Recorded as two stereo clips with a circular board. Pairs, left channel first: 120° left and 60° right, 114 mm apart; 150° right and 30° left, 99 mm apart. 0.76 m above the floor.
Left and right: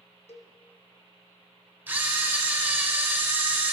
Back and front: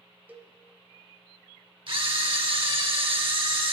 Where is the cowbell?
100° left, 0.5 m.